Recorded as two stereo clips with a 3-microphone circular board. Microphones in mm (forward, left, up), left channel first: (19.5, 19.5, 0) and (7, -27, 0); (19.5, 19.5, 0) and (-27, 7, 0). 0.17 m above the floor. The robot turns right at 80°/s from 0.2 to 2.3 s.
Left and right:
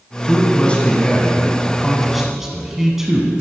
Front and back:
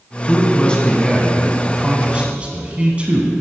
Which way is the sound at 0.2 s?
20° left.